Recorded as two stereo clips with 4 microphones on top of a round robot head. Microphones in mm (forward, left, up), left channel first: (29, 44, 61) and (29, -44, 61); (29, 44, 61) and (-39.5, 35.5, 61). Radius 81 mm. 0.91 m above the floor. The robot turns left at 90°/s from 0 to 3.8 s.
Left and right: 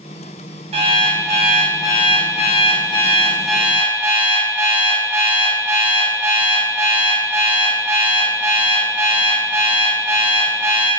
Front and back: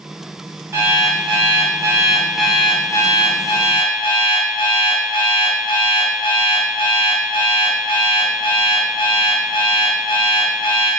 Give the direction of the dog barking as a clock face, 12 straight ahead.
No dog barking in this recording.